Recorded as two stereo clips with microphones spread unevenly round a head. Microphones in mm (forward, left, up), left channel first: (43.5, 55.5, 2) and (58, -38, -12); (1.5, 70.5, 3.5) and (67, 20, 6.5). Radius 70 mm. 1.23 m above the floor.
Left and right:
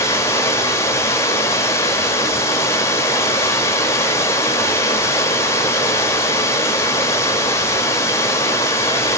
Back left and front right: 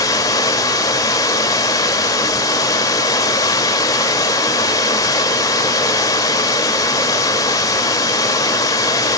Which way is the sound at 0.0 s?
125° left.